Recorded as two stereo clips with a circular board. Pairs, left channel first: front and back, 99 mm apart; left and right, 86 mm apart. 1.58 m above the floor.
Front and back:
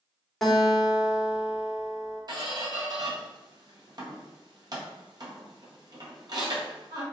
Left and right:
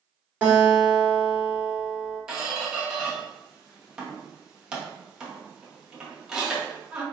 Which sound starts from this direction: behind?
A squeak, at 2.3 s.